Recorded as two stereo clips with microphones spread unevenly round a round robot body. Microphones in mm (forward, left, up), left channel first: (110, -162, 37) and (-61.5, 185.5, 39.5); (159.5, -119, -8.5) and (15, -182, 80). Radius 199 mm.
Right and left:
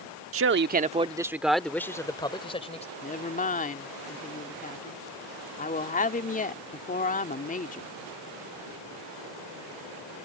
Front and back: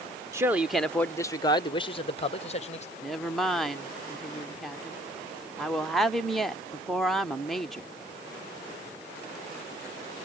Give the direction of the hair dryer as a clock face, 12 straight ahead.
I don't hear a hair dryer.